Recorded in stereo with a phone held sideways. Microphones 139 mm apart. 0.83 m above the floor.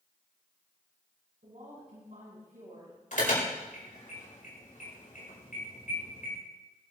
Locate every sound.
1.4 s a woman speaking: 65° right (ahead or behind), 7 m
3.1 s an alarm: 70° left (ahead or behind), 5 m